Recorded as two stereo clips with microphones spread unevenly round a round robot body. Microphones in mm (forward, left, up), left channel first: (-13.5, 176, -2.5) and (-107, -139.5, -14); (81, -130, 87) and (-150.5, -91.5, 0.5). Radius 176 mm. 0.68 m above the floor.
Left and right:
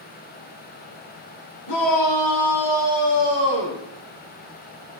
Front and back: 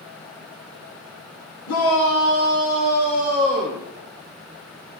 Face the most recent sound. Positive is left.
turn(degrees=70)